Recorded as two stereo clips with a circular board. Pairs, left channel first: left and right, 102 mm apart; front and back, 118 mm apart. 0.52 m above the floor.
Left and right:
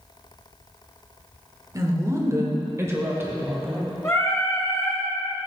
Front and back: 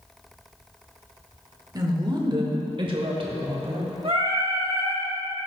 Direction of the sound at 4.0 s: 150° left.